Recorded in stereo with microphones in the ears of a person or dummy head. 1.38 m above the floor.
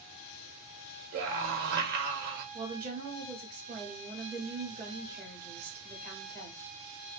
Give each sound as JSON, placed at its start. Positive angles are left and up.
{"t": 1.1, "sound": "a scream", "side_deg": -45, "distance_m": 1.8}
{"t": 2.5, "sound": "a woman speaking", "side_deg": -50, "distance_m": 2.5}